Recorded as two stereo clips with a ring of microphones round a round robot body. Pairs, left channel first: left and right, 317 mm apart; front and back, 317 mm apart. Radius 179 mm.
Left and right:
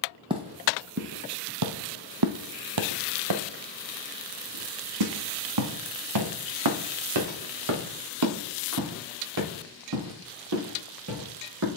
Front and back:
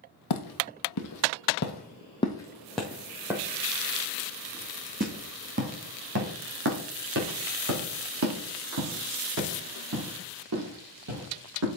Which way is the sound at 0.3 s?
15° right.